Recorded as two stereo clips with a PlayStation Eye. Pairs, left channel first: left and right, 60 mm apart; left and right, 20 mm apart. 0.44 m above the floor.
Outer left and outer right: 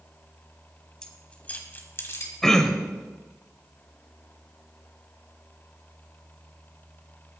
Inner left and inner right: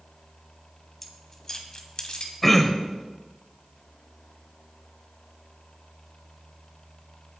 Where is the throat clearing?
10° left (ahead or behind), 1.3 m.